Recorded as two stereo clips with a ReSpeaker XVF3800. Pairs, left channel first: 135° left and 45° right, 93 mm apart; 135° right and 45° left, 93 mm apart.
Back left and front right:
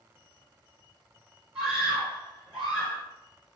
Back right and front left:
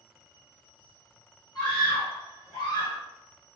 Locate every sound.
1.6 s a scream: 125° right, 2.0 m